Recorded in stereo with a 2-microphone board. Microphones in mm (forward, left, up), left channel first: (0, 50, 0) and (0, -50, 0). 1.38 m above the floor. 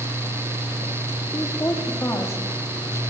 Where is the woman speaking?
30° left (ahead or behind), 4.5 m.